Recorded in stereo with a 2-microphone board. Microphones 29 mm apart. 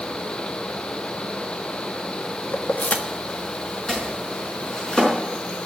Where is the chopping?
30° left (ahead or behind), 5 m.